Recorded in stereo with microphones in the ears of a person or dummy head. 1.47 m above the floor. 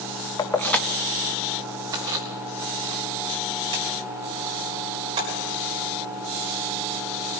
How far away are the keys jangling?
About 0.9 m.